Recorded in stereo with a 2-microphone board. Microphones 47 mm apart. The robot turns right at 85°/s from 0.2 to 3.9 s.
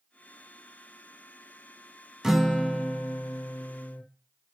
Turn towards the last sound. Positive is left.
turn(degrees=125)